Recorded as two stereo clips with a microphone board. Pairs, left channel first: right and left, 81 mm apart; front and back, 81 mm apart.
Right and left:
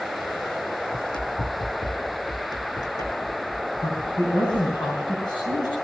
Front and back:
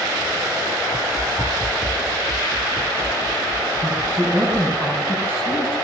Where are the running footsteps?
90° right, 3.5 m; by 4.7 s 145° right, 4 m.